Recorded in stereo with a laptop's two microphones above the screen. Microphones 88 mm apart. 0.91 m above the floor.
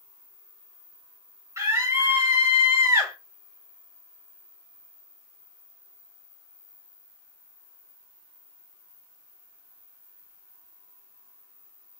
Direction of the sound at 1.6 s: 35° right (ahead or behind).